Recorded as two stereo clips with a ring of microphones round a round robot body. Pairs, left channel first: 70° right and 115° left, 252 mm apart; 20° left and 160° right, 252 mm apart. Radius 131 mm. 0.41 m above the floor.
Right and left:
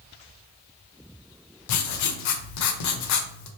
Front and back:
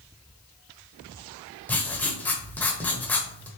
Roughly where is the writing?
Ahead right.